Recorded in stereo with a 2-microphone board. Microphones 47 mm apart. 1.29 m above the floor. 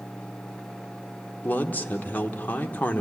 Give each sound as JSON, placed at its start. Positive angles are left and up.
{"t": 1.4, "sound": "a man speaking", "side_deg": 40, "distance_m": 1.0}